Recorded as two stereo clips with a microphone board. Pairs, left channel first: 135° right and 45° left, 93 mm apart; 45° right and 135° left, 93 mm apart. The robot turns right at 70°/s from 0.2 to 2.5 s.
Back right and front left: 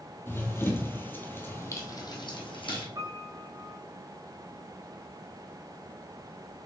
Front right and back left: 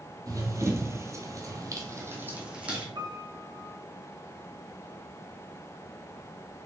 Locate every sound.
0.3 s running footsteps: 165° left, 1.9 m; by 2.9 s 150° right, 3.5 m
3.0 s a piano: 95° left, 1.6 m